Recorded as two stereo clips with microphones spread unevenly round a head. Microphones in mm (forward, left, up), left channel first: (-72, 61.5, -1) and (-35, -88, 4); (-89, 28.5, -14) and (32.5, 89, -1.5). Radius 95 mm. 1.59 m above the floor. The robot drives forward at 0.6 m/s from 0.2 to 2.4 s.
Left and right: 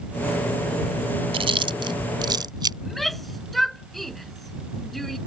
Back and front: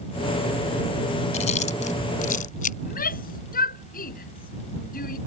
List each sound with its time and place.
1.3 s chewing: 120° right; by 2.7 s 135° right
2.8 s a shout: 165° right